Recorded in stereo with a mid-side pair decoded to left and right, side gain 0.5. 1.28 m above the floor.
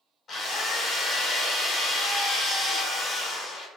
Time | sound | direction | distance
0.3 | a drill | 45° left | 1.2 m